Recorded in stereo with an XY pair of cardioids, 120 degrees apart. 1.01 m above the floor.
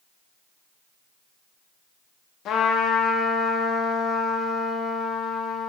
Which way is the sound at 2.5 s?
65° left.